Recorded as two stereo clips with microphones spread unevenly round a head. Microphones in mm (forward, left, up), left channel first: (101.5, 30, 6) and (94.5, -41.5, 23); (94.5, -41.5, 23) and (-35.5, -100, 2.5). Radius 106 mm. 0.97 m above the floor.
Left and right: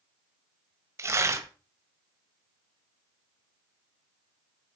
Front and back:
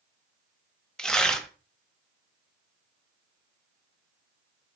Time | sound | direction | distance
1.0 | tearing paper | 55° right | 1.5 m